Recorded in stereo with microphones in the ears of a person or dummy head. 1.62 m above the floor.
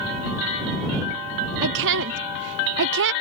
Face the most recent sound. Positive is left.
turn(degrees=-60)  # may be behind; listen again after turning